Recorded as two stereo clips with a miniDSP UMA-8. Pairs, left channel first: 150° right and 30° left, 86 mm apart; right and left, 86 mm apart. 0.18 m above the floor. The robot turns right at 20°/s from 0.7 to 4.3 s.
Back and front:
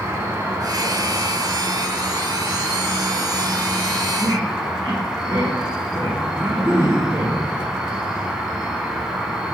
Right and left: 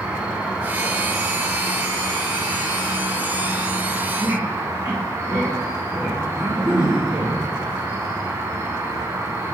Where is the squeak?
30° left, 2 m.